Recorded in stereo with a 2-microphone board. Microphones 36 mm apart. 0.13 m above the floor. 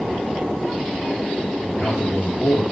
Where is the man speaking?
50° left (ahead or behind), 3.5 m.